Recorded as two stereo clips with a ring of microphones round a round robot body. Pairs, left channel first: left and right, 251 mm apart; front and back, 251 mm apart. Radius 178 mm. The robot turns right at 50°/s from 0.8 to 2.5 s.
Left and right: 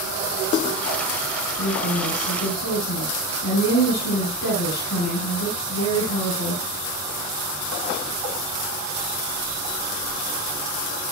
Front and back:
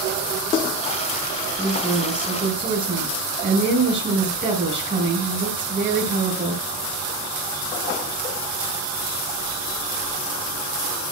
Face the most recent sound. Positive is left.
turn(degrees=125)